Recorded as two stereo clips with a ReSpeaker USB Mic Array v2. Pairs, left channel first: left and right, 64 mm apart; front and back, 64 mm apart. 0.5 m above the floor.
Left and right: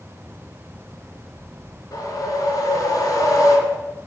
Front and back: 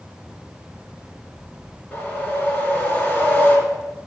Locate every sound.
1.9 s a whoosh: 60° left, 1.7 m